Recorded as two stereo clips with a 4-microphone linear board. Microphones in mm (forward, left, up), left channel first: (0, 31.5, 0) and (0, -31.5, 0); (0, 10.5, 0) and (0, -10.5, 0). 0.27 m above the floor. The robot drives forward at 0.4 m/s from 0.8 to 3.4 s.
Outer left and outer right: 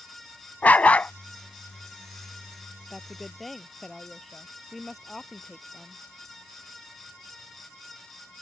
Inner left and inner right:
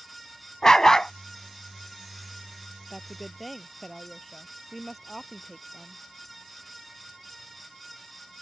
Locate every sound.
0.6 s a dog barking: 25° left (ahead or behind); by 1.1 s 20° left (ahead or behind)
2.9 s a woman speaking: centre (ahead or behind)